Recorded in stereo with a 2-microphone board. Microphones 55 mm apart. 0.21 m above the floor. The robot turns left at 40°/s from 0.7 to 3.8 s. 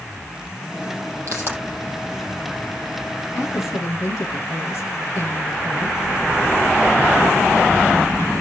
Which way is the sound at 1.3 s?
55° right (ahead or behind).